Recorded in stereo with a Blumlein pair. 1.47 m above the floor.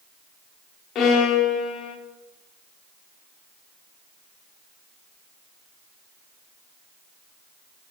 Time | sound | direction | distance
0.9 | a violin | 30° left | 1.0 m